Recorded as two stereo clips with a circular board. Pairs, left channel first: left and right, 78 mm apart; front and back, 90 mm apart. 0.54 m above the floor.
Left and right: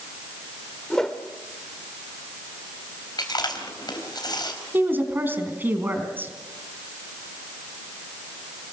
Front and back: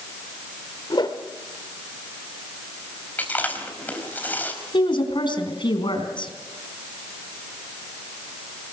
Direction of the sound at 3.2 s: 70° left.